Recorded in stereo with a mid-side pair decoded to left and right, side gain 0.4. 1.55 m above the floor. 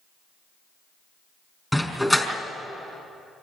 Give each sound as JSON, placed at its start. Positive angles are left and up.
{"t": 1.7, "sound": "a dog barking", "azimuth_deg": 5, "distance_m": 4.5}